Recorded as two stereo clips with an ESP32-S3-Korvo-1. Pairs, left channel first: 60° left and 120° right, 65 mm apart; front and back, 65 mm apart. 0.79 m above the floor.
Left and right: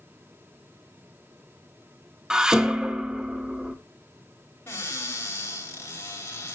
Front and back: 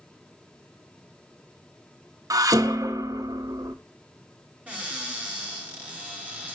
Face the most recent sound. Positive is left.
turn(degrees=110)